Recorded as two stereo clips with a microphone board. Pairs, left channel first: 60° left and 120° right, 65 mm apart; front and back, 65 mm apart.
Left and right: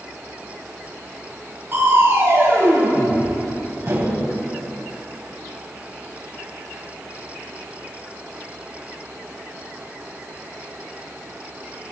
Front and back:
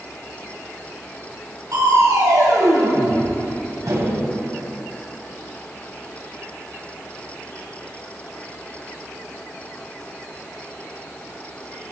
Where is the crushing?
165° right, 2 m.